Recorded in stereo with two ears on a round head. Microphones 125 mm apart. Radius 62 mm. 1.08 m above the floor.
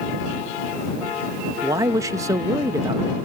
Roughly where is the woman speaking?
Right.